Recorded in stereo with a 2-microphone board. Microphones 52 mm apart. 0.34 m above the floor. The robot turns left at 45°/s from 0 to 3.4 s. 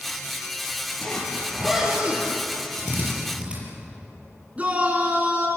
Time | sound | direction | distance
1.0 | a zipper | 20° left | 6 m
2.8 | a drill | 50° right (ahead or behind) | 8 m
4.6 | a shout | 30° right (ahead or behind) | 3.5 m